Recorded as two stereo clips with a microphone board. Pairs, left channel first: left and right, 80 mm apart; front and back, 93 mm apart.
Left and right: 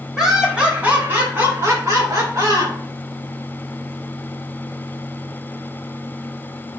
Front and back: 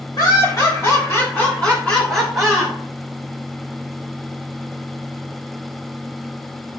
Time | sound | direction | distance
0.2 | laughter | 10° right | 1.8 m